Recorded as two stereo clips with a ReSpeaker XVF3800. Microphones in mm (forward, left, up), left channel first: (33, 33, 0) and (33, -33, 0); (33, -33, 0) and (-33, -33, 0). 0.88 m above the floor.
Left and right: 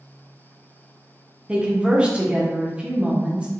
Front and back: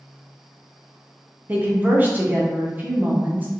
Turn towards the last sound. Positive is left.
turn(degrees=-145)